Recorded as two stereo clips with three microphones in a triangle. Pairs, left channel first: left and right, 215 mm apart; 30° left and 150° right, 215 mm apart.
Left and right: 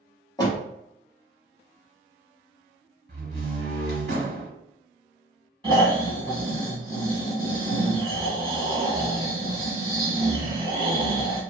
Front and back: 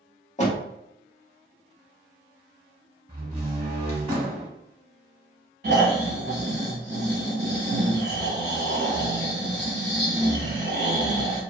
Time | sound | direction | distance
0.4 | a door slam | 35° left | 0.8 m
3.1 | a door slam | 90° right | 1.1 m
5.6 | snoring | 150° right | 1.0 m